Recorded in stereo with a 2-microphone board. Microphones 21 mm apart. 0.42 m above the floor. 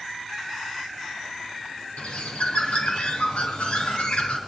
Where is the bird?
70° left (ahead or behind), 3.5 m.